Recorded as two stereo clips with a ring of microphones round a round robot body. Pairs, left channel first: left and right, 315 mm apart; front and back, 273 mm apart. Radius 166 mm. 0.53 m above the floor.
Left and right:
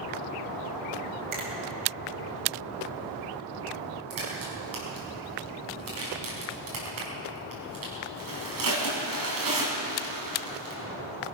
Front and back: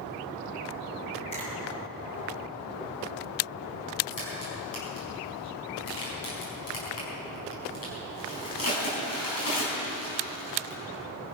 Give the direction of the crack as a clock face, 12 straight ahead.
1 o'clock.